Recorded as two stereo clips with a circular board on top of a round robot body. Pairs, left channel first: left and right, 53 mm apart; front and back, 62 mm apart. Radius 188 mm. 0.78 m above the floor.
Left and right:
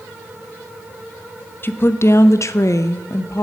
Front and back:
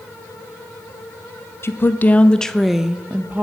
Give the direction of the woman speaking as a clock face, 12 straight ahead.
11 o'clock.